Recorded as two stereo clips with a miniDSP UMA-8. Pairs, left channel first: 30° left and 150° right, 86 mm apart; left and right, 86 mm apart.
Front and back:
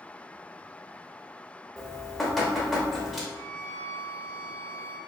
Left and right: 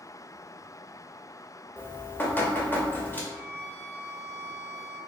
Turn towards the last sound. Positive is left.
turn(degrees=-95)